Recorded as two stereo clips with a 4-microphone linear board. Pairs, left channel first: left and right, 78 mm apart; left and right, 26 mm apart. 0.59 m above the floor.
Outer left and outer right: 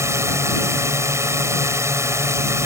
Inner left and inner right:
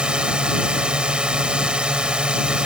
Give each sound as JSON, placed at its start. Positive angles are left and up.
{"t": 0.0, "sound": "a drone", "side_deg": -40}